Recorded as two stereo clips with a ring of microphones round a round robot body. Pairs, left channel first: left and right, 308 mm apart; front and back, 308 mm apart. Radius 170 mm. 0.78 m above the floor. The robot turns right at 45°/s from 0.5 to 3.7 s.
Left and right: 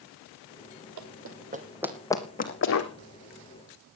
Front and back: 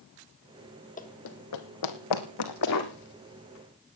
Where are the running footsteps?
65° right, 1.9 m; by 2.9 s 55° left, 3 m.